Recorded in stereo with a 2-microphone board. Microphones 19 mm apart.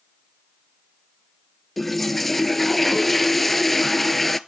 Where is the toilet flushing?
10° left (ahead or behind), 0.5 m.